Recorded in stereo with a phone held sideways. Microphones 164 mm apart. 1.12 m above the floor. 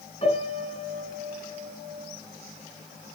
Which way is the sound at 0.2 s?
45° left (ahead or behind).